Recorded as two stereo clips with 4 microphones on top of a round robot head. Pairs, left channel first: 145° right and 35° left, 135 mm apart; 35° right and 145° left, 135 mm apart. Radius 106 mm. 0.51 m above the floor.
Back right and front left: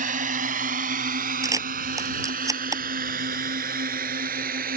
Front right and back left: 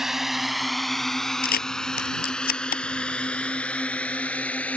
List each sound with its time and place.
0.0 s a drone: 60° left; by 4.8 s 45° left
1.4 s a camera shutter: 35° right